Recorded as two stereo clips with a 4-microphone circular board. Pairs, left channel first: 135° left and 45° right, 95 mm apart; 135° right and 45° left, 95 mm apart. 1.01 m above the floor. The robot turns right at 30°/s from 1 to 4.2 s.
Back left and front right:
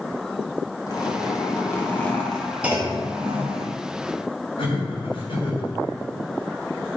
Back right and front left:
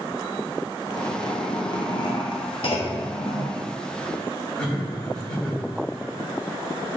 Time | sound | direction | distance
0.9 | a zipper | 175° left | 1.7 m
2.6 | a clunk | 120° right | 1.1 m
4.6 | laughter | 145° left | 3 m